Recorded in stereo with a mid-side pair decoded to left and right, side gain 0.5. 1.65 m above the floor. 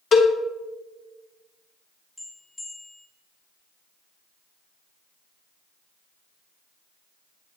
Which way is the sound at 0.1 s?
50° left.